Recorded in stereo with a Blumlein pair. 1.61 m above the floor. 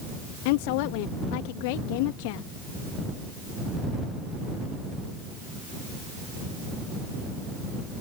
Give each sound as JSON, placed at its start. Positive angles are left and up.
{"t": 0.5, "sound": "a woman speaking", "azimuth_deg": 45}